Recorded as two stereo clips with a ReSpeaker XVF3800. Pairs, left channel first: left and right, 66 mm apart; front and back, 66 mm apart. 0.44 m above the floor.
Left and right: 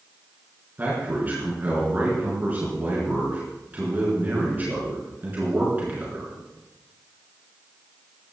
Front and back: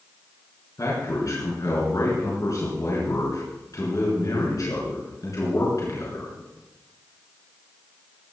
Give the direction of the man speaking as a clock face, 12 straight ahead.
1 o'clock.